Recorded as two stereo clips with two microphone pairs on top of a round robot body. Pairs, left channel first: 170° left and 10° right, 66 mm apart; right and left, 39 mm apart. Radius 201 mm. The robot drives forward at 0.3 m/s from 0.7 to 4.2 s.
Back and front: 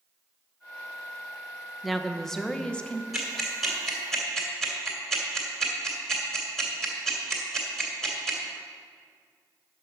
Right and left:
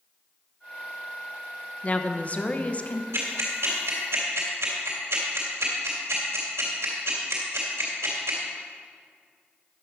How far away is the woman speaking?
About 1.1 m.